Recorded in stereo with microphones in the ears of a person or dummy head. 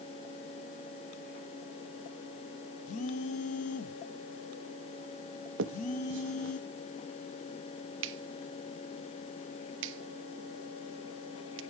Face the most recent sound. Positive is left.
turn(degrees=-80)